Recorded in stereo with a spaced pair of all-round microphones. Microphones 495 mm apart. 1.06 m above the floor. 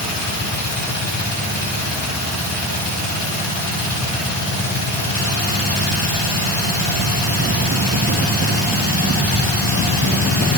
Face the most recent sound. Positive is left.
turn(degrees=40)  # may be behind; listen again after turning